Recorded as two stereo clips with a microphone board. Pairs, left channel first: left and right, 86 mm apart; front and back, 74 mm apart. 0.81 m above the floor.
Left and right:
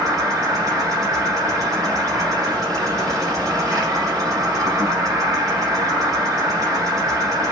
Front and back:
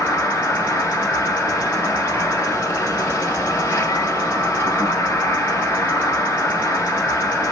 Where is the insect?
45° right, 3.5 m.